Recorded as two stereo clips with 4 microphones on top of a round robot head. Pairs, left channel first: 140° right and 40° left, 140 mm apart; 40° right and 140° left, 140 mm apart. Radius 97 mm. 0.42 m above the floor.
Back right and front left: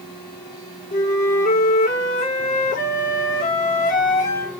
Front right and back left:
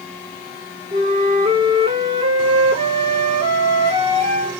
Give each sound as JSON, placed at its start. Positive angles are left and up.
{"t": 0.9, "sound": "a flute", "azimuth_deg": -170, "distance_m": 1.6}